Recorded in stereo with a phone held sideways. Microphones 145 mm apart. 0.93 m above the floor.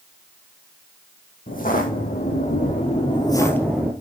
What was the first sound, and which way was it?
Footsteps, 75° left (ahead or behind).